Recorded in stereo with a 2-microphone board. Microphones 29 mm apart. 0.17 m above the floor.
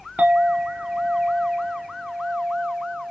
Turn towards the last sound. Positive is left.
turn(degrees=-40)  # may be behind; listen again after turning